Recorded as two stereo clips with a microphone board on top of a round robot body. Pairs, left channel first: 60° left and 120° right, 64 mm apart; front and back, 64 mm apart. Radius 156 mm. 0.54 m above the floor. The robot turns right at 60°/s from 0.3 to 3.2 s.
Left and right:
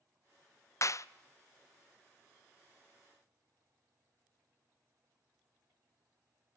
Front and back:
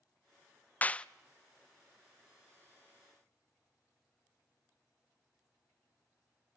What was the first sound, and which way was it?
A clap, 55° left.